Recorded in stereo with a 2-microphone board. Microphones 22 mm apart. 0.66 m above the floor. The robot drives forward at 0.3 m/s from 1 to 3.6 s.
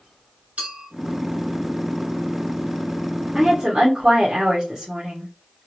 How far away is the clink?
About 2 m.